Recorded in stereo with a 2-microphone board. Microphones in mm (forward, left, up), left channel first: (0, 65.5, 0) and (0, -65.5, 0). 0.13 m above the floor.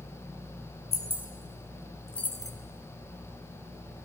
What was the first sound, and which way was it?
Keys jangling, 50° right (ahead or behind).